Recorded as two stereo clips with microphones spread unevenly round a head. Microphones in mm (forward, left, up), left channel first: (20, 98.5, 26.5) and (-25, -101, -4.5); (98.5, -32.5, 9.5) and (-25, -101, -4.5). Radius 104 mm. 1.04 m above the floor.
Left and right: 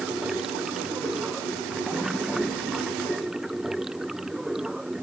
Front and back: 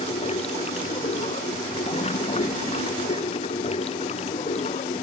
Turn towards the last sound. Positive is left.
turn(degrees=-15)